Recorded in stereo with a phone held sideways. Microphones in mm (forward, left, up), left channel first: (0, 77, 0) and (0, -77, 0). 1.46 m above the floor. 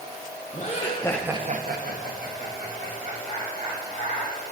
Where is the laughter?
50° left (ahead or behind), 1.3 m; by 4.3 s 70° right (ahead or behind), 4.5 m.